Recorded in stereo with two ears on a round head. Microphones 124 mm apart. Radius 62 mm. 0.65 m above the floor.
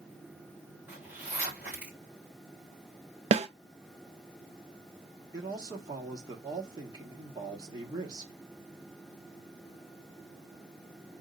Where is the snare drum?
45° right (ahead or behind), 0.5 m.